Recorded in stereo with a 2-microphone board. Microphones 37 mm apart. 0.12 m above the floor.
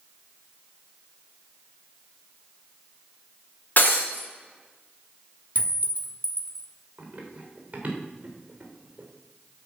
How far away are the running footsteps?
About 3.5 m.